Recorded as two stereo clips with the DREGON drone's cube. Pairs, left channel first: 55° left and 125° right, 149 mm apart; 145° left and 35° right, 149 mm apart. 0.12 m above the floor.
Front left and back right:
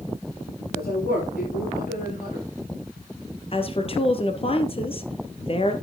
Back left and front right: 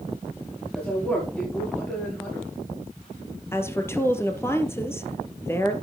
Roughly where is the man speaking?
Ahead left.